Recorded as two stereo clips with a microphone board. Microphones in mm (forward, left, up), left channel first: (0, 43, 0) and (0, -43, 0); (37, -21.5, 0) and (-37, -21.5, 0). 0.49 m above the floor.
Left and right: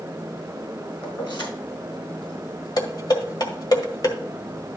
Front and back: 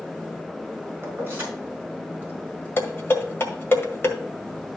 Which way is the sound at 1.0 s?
125° left.